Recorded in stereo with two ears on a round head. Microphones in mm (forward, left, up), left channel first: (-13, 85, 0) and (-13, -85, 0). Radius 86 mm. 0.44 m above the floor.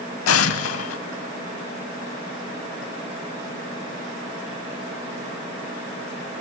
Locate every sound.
0.3 s an explosion: 85° left, 0.7 m